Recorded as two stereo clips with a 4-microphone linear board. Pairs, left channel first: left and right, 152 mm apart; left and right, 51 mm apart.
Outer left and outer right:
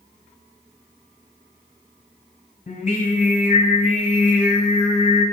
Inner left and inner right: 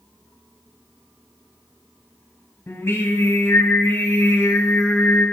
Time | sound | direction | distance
2.7 | singing | 55° left (ahead or behind) | 2 m